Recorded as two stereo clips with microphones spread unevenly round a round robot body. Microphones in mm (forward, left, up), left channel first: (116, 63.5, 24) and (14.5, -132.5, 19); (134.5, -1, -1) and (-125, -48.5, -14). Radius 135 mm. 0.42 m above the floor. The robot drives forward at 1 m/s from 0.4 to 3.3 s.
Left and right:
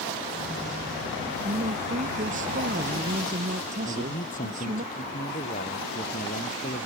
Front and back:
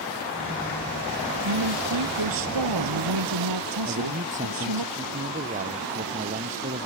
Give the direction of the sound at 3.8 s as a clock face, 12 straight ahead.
8 o'clock.